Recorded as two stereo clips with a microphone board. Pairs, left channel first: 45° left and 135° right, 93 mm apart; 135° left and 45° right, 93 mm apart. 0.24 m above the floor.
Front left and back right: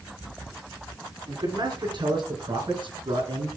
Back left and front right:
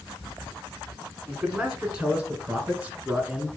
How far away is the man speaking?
About 3 m.